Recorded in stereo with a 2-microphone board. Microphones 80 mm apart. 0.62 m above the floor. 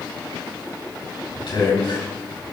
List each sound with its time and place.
1.4 s a man speaking: 75° left (ahead or behind), 4 m